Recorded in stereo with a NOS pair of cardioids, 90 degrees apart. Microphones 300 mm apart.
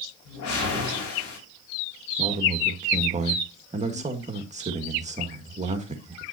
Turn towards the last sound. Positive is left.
turn(degrees=-25)